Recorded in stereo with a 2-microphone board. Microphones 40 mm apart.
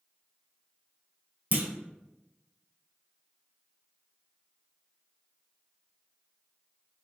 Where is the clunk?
45° right (ahead or behind), 0.6 m.